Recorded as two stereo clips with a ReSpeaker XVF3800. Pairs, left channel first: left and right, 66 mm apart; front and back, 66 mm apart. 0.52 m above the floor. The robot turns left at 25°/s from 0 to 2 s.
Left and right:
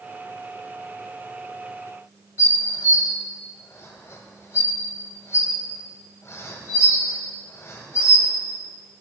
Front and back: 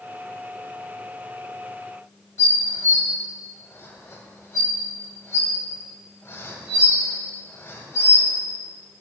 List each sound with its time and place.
2.4 s dishes clattering: 50° left, 1.8 m